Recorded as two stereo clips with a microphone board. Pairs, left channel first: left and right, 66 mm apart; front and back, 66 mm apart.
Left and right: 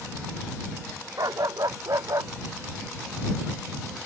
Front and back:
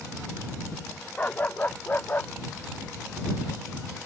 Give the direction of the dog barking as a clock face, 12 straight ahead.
2 o'clock.